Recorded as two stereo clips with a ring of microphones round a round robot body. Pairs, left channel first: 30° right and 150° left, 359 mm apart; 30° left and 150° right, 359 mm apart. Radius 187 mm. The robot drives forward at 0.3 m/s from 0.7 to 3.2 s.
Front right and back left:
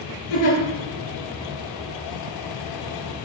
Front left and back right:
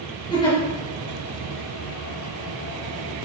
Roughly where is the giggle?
Ahead right.